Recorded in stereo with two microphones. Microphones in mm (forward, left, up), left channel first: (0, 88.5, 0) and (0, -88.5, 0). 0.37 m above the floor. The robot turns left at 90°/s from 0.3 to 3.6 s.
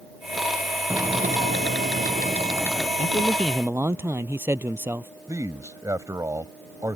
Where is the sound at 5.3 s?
20° right (ahead or behind).